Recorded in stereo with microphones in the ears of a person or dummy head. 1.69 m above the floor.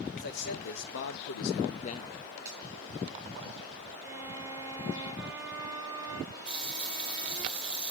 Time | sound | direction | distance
0.1 | a man speaking | 60° left (ahead or behind) | 1.3 m
2.5 | a finger snap | 15° right (ahead or behind) | 6 m
4.0 | a violin | 15° right (ahead or behind) | 2.5 m
6.5 | a running tap | 5° right (ahead or behind) | 1.8 m